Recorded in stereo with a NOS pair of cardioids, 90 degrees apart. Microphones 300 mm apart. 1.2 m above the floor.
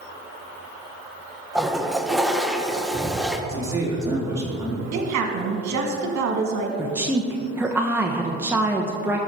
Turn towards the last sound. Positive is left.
turn(degrees=-5)